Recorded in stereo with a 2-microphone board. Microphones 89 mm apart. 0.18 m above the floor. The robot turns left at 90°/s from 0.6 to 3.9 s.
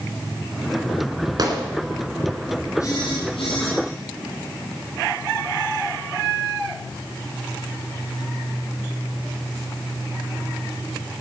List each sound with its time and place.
1.4 s a gunshot: 50° right (ahead or behind), 2.5 m; by 1.6 s 40° right (ahead or behind), 2.5 m
2.8 s a phone buzzing: 140° left, 6 m; by 3.8 s 55° left, 6 m